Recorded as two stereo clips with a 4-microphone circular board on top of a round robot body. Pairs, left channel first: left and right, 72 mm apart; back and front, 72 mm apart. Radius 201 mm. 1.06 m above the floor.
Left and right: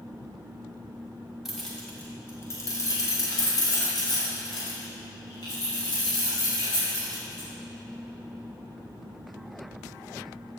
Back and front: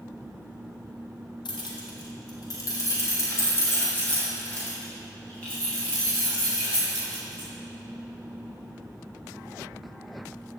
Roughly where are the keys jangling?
Behind.